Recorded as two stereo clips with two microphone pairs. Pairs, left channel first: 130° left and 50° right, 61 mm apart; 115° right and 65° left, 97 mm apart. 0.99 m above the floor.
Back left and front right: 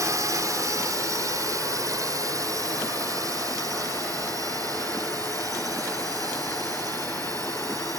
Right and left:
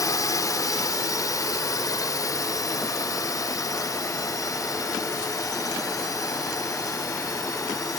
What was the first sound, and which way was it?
A drone, 65° right.